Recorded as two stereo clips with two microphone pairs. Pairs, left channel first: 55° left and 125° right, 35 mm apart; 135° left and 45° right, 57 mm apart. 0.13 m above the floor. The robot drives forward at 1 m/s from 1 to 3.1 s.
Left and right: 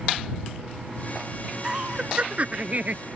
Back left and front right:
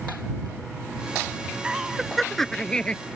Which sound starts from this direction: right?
Laughter, at 1.6 s.